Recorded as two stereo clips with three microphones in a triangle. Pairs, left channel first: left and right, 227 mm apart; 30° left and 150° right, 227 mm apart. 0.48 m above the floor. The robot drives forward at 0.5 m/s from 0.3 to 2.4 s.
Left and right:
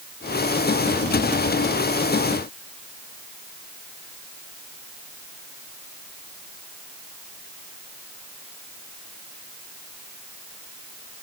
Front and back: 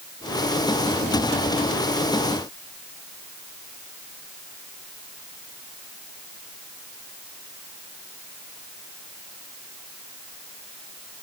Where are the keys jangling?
No keys jangling in this recording.